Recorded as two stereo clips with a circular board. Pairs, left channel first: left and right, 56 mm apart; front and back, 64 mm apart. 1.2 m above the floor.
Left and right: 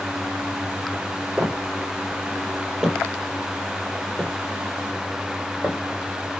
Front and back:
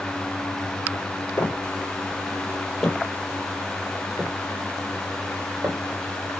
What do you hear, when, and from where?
1.4 s footsteps: 25° right, 1.5 m; by 5.8 s 145° left, 1.8 m